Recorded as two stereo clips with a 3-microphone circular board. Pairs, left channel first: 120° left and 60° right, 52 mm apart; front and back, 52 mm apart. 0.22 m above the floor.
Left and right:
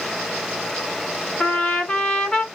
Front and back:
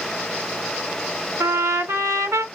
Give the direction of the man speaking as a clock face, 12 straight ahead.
No man speaking in this recording.